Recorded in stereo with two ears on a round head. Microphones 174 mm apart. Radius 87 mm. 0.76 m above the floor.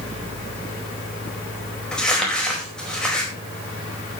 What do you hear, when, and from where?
1.9 s crumpling: 5° left (ahead or behind), 4.5 m